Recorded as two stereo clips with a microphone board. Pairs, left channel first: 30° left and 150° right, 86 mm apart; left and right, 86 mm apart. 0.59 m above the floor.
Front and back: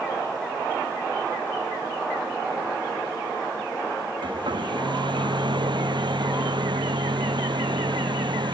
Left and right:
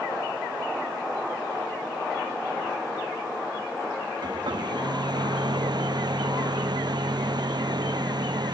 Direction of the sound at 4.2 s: 125° right.